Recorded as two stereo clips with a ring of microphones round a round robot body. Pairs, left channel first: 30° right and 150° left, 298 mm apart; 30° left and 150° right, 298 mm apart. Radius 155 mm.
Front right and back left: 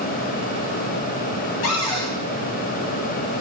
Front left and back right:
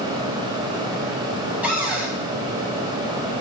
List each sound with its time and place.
1.6 s a cupboard door: 65° right, 2 m